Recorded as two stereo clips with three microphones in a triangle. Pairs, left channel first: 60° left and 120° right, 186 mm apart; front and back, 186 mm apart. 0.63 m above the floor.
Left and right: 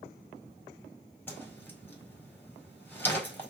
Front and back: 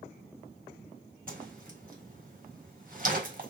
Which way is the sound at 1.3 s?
140° left.